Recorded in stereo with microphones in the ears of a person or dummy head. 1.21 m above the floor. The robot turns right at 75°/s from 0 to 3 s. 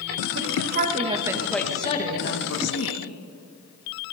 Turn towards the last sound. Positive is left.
turn(degrees=110)